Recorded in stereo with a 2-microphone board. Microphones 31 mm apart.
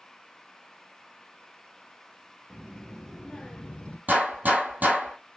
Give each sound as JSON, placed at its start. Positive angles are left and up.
{"t": 2.5, "sound": "a child speaking", "side_deg": -10, "distance_m": 0.9}
{"t": 4.1, "sound": "a gunshot", "side_deg": -60, "distance_m": 1.9}